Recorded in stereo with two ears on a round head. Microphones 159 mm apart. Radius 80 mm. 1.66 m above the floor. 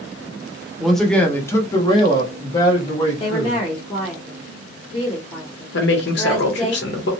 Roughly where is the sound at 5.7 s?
Left.